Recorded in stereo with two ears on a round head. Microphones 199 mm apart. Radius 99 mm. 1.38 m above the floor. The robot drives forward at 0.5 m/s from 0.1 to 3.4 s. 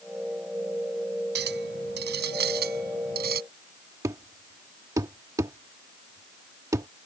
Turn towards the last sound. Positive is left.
turn(degrees=-15)  # may be behind; listen again after turning